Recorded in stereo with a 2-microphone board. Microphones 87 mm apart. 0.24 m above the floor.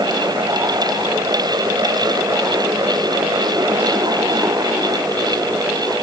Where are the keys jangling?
No keys jangling in this recording.